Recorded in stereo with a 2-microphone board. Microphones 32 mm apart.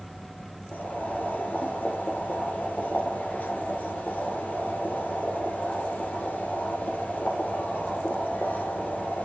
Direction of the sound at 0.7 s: 65° left (ahead or behind).